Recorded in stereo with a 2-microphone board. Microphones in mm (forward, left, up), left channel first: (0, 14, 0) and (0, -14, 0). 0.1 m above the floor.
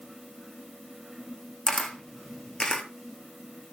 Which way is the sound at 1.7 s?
30° left (ahead or behind).